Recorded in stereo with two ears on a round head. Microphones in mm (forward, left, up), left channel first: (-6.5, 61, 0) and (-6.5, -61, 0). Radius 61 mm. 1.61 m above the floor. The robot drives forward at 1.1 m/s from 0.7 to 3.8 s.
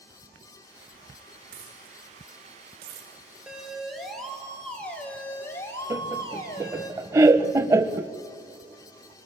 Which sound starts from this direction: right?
A dropped coin, at 1.5 s.